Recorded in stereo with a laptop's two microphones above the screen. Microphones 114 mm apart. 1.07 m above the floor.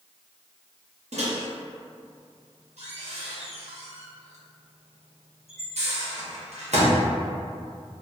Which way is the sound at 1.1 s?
80° right.